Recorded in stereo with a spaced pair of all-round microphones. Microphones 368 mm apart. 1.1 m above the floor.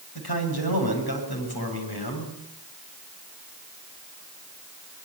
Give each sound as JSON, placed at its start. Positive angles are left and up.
{"t": 0.1, "sound": "a man speaking", "side_deg": 85, "distance_m": 7.5}